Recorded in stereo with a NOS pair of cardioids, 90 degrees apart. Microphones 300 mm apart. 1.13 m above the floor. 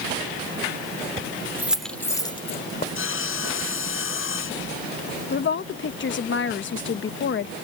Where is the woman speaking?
40° left.